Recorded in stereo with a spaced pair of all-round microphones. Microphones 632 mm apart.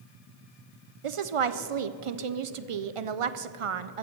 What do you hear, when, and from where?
1.0 s a woman speaking: 55° right (ahead or behind), 0.6 m